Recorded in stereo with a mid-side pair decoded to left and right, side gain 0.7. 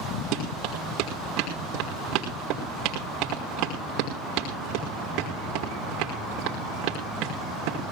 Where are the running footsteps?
65° right, 5.5 m.